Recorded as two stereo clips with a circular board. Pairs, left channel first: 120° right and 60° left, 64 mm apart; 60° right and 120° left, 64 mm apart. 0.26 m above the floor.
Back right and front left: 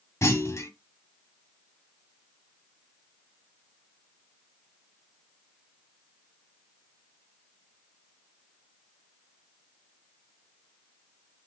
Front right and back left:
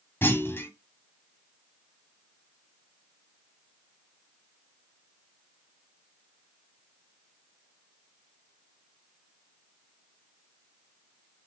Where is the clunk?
100° right, 1.6 m.